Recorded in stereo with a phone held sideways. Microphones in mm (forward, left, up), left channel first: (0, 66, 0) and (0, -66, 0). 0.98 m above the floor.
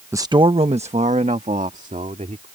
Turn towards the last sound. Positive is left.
turn(degrees=-75)  # may be behind; listen again after turning